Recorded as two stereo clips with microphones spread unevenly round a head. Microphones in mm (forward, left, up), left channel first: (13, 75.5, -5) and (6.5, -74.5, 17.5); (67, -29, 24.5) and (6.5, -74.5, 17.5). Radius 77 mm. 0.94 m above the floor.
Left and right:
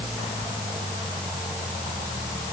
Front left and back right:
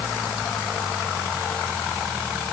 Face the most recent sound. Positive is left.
No sound to turn to.